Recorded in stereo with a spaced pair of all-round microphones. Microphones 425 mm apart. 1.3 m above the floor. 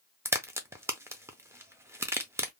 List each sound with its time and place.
0.2 s a crack: 5° right (ahead or behind), 0.6 m